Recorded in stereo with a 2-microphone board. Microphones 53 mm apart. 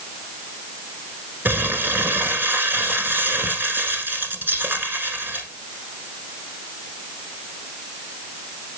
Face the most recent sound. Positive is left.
turn(degrees=-40)  # may be behind; listen again after turning